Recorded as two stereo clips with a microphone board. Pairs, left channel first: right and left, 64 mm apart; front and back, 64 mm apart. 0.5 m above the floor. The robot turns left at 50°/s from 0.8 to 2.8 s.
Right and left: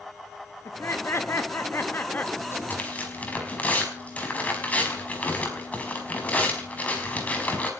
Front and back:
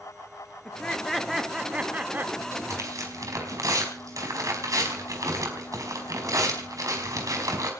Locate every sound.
0.7 s laughter: 70° right, 1.1 m; by 2.3 s 140° right, 1.1 m
2.4 s tearing paper: 135° right, 5 m; by 7.7 s 155° right, 5 m